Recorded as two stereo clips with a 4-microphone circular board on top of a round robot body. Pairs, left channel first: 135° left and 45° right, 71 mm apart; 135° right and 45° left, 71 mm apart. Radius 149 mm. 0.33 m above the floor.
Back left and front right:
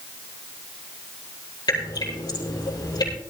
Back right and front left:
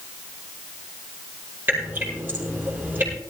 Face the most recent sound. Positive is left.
turn(degrees=110)